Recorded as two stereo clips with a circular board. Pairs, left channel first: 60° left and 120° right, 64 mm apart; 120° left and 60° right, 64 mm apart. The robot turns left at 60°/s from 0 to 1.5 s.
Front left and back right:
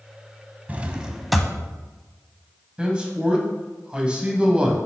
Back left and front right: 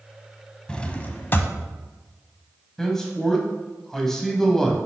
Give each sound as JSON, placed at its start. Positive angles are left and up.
{"t": 0.7, "sound": "a drawer", "azimuth_deg": -170, "distance_m": 0.5}
{"t": 2.8, "sound": "a man speaking", "azimuth_deg": -170, "distance_m": 1.2}